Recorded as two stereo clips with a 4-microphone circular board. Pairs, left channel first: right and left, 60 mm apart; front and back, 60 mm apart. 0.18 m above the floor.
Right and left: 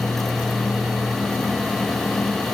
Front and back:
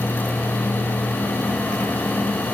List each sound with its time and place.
Only background noise.